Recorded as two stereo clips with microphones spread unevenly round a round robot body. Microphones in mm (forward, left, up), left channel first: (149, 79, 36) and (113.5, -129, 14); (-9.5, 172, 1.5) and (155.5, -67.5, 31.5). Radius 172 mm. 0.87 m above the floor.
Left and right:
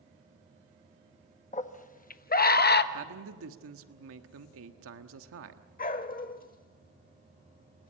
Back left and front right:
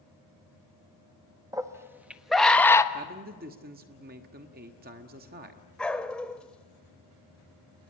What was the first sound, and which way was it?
A scream, 25° left.